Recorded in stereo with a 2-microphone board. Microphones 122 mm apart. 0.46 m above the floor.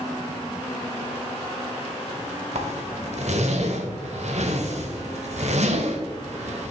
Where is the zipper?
65° right (ahead or behind), 1.1 m.